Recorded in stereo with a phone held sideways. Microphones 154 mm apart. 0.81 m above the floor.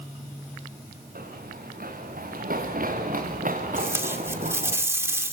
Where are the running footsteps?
70° right (ahead or behind), 7 m; by 4.8 s 55° right (ahead or behind), 6 m.